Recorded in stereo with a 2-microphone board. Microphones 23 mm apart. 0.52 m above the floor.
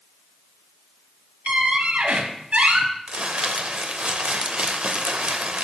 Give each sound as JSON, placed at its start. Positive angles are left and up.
{"t": 1.5, "sound": "a squeak", "side_deg": -75, "distance_m": 0.7}
{"t": 3.1, "sound": "crumpling", "side_deg": -55, "distance_m": 0.5}